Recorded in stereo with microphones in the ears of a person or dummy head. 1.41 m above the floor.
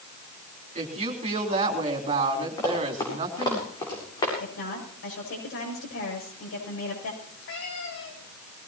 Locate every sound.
0.8 s a woman speaking: 40° right (ahead or behind), 3.5 m
2.6 s running footsteps: 20° left (ahead or behind), 9 m; by 4.3 s 25° left (ahead or behind), 8 m
4.4 s a woman speaking: 70° left (ahead or behind), 7.5 m
7.2 s a cat meowing: 65° left (ahead or behind), 5.5 m